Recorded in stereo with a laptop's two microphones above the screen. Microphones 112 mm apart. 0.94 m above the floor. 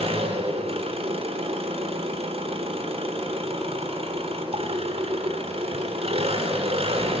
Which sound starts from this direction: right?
An engine running, at 0.0 s.